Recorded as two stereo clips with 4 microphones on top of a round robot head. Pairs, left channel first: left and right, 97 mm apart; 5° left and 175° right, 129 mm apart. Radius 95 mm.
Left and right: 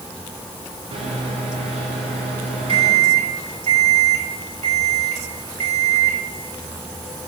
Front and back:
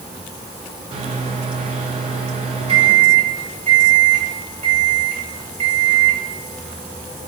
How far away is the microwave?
About 1.3 m.